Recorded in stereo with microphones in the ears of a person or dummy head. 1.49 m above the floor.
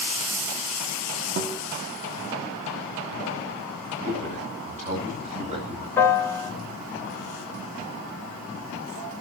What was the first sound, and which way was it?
A guitar, 50° right (ahead or behind).